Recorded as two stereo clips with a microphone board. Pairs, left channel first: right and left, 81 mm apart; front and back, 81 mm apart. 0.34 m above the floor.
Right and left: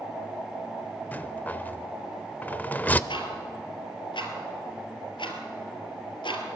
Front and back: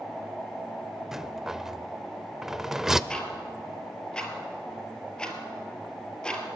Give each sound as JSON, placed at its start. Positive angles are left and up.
{"t": 1.1, "sound": "a rattle", "azimuth_deg": -100, "distance_m": 0.6}
{"t": 3.1, "sound": "ticking", "azimuth_deg": -80, "distance_m": 3.0}